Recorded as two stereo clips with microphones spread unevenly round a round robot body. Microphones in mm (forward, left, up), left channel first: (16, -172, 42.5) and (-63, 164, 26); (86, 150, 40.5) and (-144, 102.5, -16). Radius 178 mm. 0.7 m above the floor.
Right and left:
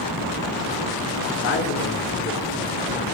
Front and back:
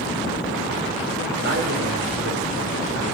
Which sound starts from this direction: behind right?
A man speaking, at 1.4 s.